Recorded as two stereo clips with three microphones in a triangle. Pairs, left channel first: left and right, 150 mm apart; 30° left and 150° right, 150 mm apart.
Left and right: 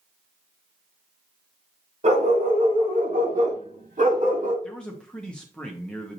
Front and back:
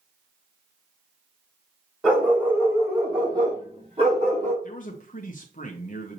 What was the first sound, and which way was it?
A dog barking, 65° right.